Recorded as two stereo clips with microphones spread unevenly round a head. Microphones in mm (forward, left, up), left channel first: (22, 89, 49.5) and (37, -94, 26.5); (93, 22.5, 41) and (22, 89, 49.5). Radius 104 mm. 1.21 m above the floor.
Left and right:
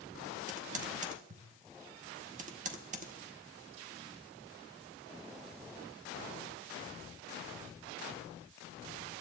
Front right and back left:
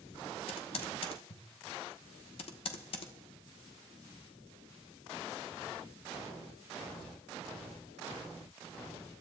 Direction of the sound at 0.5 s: 35° right.